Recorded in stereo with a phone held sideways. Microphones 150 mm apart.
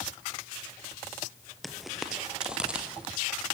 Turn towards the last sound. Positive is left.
turn(degrees=-10)  # may be behind; listen again after turning